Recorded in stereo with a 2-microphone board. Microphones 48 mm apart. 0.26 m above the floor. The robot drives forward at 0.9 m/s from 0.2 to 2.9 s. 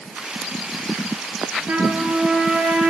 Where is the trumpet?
40° right (ahead or behind), 5 m; by 2.9 s 35° right (ahead or behind), 5.5 m.